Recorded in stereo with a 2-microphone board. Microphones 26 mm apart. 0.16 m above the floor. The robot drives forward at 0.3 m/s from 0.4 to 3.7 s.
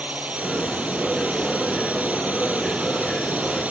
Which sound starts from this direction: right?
A drone, at 0.0 s.